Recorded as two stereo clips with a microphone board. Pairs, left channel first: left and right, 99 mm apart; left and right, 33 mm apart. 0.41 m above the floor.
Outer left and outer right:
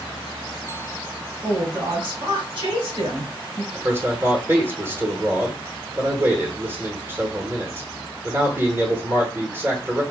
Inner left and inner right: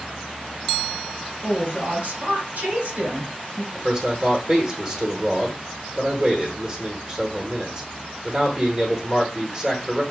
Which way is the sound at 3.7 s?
25° right (ahead or behind).